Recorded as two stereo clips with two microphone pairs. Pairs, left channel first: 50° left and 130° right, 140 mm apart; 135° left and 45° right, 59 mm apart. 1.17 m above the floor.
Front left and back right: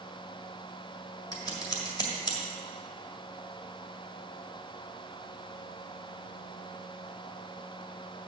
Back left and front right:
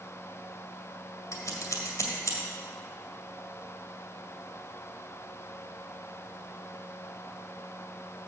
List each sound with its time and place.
1.3 s scissors: 105° left, 1.8 m